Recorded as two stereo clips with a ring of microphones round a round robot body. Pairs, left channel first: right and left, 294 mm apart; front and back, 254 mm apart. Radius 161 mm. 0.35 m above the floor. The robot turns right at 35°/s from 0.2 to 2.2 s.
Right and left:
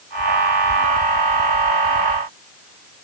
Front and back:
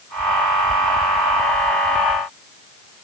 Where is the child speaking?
I don't hear a child speaking.